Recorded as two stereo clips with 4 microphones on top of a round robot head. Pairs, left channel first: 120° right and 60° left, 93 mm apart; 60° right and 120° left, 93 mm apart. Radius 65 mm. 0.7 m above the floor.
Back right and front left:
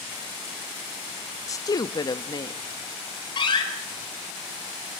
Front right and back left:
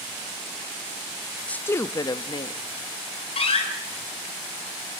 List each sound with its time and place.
1.5 s a woman speaking: 125° right, 0.5 m; by 2.6 s 85° right, 0.9 m
3.4 s a door slam: 85° right, 4.5 m